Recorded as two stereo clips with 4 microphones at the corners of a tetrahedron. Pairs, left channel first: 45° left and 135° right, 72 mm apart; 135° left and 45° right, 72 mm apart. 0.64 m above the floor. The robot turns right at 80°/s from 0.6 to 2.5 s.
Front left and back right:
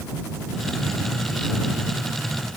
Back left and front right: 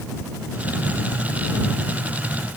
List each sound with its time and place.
Only background noise.